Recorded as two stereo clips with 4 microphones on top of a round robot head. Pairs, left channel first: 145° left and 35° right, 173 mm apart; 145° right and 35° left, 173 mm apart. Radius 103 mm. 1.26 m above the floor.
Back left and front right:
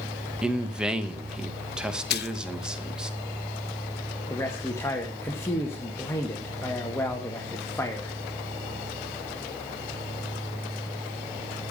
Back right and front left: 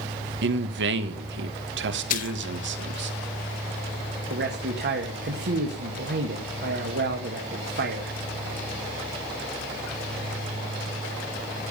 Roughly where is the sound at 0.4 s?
Ahead left.